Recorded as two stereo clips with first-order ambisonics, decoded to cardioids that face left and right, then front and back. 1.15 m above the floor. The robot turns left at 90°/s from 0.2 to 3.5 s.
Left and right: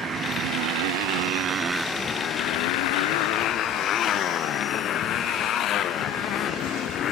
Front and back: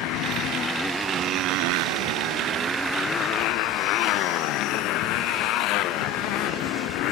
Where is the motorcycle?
25° right; by 7.1 s 35° left.